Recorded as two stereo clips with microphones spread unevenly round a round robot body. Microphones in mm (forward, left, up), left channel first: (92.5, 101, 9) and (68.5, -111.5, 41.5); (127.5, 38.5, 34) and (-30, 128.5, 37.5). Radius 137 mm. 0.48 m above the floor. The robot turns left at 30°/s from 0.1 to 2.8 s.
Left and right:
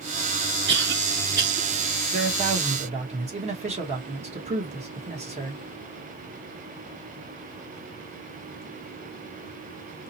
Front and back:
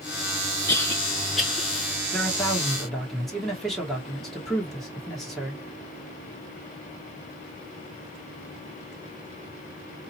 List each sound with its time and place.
0.7 s a cough: 95° right, 0.9 m; by 1.7 s 125° right, 0.9 m
2.1 s a man speaking: 95° right, 1.3 m; by 5.6 s 115° right, 1.3 m